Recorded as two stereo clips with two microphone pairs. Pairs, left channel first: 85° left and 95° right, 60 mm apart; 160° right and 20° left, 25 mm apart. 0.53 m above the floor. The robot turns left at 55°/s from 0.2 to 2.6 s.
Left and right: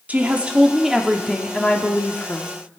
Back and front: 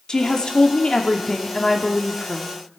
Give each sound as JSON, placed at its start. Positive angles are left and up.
{"t": 0.1, "sound": "a woman speaking", "azimuth_deg": -140, "distance_m": 0.8}